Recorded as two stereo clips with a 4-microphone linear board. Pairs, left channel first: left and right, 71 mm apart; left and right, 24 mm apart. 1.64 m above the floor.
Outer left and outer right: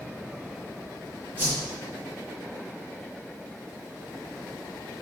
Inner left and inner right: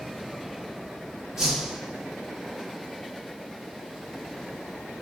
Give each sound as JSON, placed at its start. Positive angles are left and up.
{"t": 1.4, "sound": "a whoosh", "side_deg": -25, "distance_m": 4.5}